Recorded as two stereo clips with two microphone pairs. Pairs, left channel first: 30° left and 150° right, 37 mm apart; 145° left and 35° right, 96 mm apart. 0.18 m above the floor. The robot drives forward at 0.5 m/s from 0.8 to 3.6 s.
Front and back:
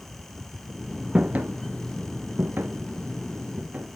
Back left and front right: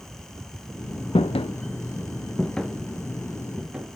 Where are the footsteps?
145° left, 0.7 m; by 4.0 s 110° right, 2 m.